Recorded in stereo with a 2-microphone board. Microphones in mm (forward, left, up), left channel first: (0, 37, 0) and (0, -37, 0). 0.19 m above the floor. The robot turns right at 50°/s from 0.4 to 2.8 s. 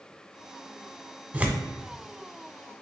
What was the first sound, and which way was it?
Tearing paper, 20° right (ahead or behind).